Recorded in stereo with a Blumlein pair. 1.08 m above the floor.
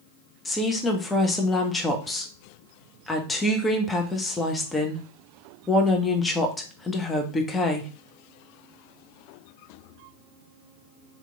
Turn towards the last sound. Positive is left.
turn(degrees=10)